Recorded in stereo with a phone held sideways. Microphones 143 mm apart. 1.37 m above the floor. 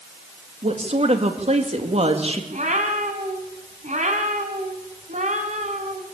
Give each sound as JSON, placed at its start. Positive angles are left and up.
{"t": 0.6, "sound": "a woman speaking", "side_deg": -45, "distance_m": 2.5}
{"t": 2.5, "sound": "a cat meowing", "side_deg": -55, "distance_m": 3.5}